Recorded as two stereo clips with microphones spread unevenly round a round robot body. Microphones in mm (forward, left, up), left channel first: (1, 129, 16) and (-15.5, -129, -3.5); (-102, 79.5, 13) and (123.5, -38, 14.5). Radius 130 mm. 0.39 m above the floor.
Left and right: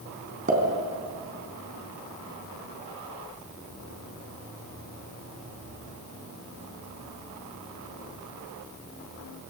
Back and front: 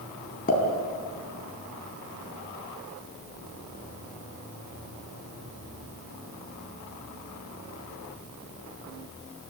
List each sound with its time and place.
0.5 s a pop: 150° right, 3.5 m